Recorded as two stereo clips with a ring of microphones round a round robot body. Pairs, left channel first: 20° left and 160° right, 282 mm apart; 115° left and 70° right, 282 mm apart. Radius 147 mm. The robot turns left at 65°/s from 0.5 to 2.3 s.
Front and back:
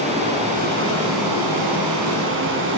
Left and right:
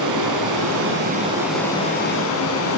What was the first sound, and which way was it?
Running water, 90° right.